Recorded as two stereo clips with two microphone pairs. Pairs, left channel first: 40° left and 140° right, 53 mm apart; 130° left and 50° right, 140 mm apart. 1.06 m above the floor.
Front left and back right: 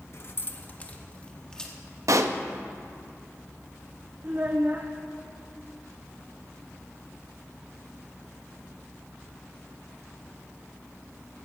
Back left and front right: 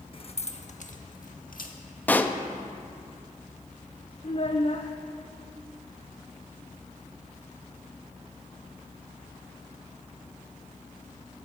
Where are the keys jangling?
80° left, 1.0 m; by 1.8 s 120° left, 1.6 m.